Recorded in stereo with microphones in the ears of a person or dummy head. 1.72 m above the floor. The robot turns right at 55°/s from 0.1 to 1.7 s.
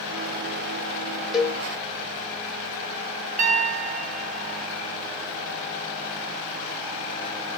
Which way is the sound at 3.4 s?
45° right (ahead or behind).